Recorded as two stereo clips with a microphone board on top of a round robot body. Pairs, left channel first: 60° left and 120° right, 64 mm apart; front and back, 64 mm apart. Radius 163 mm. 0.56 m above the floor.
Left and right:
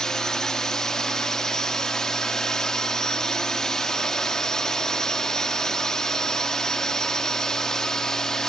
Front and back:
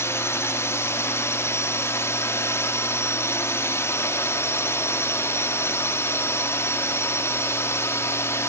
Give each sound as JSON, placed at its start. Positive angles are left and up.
{"t": 0.0, "sound": "a drone", "azimuth_deg": -15}